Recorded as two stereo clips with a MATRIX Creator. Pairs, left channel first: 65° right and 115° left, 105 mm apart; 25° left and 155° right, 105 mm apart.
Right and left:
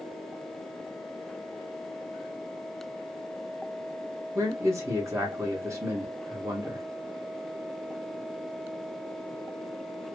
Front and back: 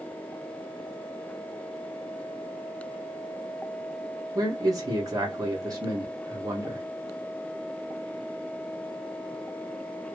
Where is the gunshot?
I don't hear a gunshot.